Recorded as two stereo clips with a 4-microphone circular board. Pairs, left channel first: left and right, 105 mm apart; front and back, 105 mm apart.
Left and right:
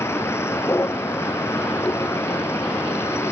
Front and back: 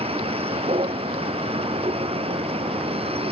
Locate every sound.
0.0 s a vehicle: 155° left